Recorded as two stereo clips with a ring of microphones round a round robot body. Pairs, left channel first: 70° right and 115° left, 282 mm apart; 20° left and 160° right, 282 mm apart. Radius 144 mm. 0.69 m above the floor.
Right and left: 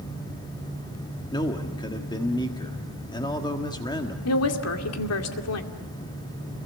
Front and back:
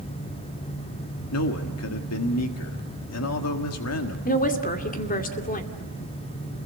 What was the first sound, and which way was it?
A man speaking, 5° left.